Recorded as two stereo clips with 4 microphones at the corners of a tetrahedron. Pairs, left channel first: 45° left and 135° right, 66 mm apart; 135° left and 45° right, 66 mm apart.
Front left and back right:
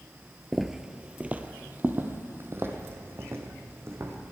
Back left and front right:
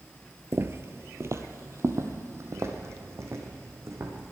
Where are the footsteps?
50° right, 0.6 m; by 4.3 s 90° right, 2 m.